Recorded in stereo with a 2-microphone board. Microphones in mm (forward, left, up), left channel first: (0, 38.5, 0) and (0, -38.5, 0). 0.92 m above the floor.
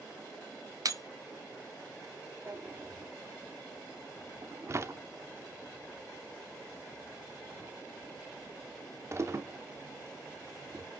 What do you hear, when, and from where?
0.8 s breaking glass: 50° right (ahead or behind), 1.2 m
2.5 s a drawer: 35° right (ahead or behind), 0.8 m